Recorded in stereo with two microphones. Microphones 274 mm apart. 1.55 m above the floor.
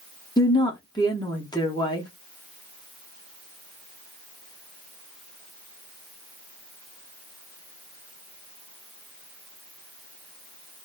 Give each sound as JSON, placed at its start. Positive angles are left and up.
{"t": 0.4, "sound": "a woman speaking", "side_deg": 15, "distance_m": 0.8}